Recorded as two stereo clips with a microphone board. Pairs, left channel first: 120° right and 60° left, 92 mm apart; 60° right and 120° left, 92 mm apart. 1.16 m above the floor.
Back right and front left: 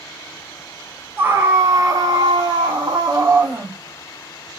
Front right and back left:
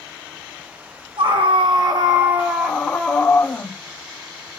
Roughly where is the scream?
Behind left.